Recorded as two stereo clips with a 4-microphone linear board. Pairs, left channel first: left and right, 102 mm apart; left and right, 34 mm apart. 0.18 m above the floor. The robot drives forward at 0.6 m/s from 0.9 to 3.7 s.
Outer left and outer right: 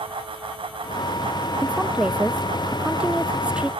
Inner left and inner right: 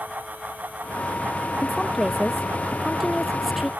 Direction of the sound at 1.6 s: 10° right (ahead or behind).